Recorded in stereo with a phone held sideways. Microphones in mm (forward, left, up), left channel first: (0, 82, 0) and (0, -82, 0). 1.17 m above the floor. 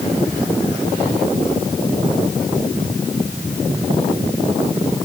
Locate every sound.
Only background noise.